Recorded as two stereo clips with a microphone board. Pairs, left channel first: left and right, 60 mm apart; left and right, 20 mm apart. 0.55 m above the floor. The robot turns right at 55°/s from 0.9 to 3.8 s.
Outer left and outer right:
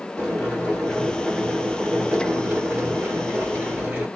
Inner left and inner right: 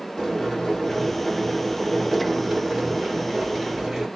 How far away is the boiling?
About 1.5 m.